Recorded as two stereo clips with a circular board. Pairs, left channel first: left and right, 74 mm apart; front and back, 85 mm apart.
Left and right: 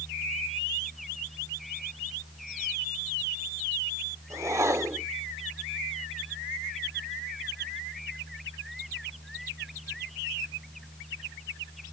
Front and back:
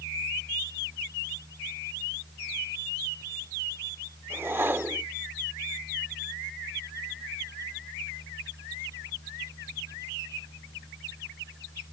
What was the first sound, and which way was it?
A whoosh, 125° right.